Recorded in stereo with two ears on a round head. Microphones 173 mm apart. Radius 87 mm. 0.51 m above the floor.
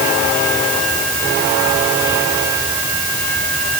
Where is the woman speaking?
No woman speaking in this recording.